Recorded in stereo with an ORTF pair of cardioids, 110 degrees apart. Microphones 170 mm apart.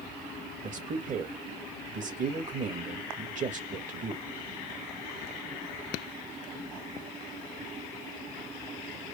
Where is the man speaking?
45° right, 1.8 m.